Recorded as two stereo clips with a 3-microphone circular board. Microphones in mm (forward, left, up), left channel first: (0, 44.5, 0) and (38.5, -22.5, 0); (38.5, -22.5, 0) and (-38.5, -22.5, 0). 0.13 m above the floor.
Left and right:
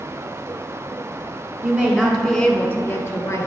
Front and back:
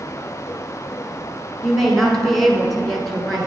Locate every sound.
1.6 s a woman speaking: 80° right, 1.1 m; by 3.5 s 90° left, 1.4 m